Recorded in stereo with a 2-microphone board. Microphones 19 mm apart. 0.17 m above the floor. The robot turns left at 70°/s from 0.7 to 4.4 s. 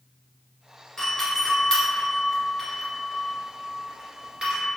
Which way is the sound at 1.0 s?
20° left (ahead or behind).